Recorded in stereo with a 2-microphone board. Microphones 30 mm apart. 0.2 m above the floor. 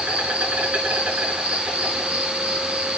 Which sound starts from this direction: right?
An insect, at 0.0 s.